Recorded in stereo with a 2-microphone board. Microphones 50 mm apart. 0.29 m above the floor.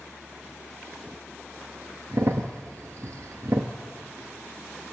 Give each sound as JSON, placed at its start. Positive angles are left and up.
{"t": 2.1, "sound": "a crack", "side_deg": -70, "distance_m": 1.2}